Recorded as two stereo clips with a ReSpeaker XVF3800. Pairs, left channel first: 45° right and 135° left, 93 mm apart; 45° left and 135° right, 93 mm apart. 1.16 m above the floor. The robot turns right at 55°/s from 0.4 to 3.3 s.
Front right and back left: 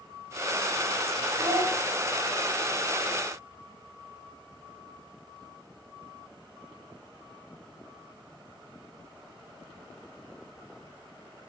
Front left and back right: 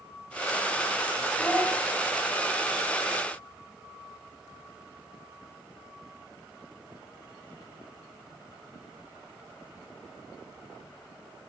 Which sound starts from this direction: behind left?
A child speaking, at 1.4 s.